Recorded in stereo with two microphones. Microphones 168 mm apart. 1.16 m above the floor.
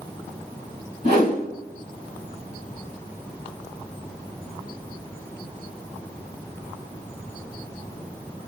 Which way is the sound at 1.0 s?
40° left (ahead or behind).